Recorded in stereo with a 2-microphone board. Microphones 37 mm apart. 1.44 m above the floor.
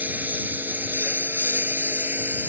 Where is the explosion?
No explosion in this recording.